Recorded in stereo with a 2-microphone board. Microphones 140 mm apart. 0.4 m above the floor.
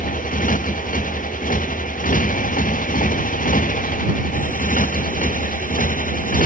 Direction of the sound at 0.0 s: 75° left (ahead or behind).